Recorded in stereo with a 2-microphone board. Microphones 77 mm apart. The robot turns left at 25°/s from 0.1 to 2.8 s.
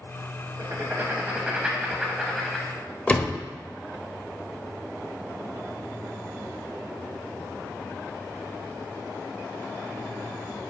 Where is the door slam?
20° left (ahead or behind), 0.6 m.